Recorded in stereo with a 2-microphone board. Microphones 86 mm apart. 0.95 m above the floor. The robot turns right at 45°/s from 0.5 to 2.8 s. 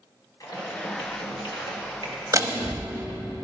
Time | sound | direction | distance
0.4 | typing on a keyboard | 50° left | 1.5 m
2.3 | a door slam | 40° right (ahead or behind) | 0.9 m